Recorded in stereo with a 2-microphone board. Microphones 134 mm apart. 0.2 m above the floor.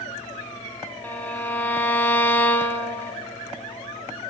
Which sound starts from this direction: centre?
A violin, at 1.0 s.